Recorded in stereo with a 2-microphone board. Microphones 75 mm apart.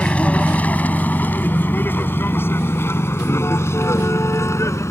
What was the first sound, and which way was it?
A vehicle, 15° left (ahead or behind).